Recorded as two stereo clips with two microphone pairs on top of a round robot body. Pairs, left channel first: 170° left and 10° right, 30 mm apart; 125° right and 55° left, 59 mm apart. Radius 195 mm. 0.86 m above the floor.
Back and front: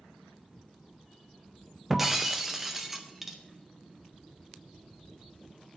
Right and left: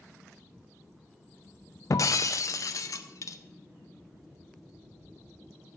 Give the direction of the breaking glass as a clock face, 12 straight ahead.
3 o'clock.